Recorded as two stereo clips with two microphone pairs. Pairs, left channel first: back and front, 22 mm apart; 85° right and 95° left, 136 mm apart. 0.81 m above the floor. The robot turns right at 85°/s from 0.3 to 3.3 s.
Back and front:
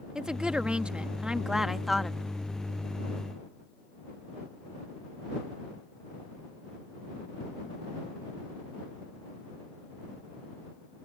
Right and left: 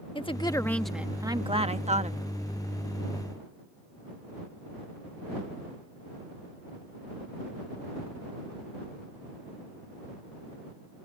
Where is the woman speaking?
45° right; by 2.2 s 115° left.